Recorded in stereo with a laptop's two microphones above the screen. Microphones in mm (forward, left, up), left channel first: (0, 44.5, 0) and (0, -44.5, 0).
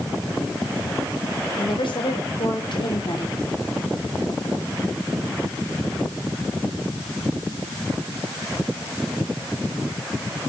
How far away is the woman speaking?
About 5 m.